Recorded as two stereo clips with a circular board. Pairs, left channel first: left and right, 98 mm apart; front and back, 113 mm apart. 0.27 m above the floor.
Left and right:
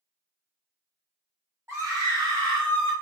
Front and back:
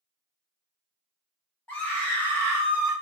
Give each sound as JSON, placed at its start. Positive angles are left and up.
{"t": 1.7, "sound": "a scream", "azimuth_deg": -60, "distance_m": 1.2}